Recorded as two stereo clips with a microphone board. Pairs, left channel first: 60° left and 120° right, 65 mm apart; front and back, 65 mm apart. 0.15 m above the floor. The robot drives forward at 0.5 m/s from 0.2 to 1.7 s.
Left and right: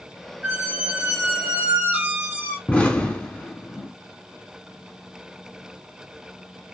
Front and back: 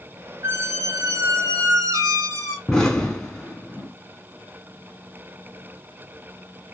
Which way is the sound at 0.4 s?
Straight behind.